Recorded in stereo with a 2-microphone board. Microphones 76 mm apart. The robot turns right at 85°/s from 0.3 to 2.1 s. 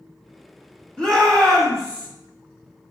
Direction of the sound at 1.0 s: 15° left (ahead or behind).